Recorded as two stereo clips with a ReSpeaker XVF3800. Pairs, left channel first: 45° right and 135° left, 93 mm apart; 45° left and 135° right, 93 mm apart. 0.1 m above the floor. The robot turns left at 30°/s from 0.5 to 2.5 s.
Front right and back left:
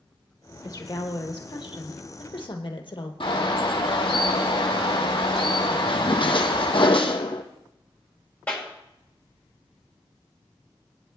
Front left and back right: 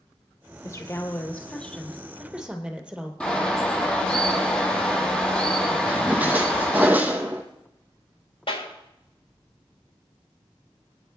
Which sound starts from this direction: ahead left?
A clap, at 8.5 s.